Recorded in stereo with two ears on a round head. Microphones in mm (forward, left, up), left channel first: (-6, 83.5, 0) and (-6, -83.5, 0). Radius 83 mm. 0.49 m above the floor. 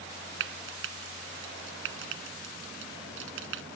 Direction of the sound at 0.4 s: 75° right (ahead or behind).